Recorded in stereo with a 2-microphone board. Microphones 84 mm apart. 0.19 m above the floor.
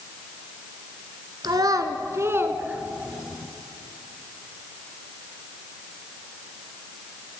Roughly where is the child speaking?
Right.